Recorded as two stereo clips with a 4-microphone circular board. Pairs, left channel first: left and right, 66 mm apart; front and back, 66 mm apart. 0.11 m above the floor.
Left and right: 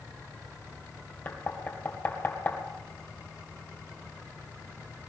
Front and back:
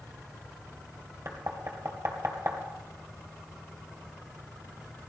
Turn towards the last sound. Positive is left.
turn(degrees=145)